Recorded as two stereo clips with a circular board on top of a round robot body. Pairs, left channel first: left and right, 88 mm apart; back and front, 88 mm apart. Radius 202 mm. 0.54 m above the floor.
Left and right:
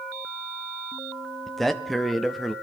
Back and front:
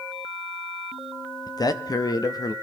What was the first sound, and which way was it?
A man speaking, 175° left.